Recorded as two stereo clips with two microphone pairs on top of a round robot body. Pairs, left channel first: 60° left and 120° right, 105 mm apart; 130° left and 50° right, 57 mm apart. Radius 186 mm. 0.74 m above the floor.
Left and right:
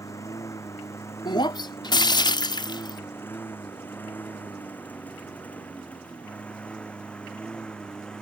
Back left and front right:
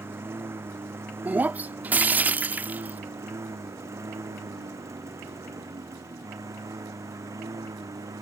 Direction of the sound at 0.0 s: Straight ahead.